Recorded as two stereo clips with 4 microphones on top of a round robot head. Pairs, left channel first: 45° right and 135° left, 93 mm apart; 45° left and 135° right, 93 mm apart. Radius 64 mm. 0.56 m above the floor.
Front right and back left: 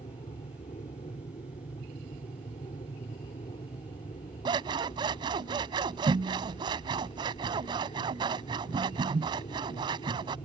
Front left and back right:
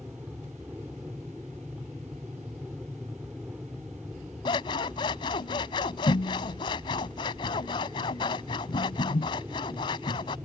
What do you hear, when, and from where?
0.0 s an aircraft: 60° right
4.5 s scissors: 90° left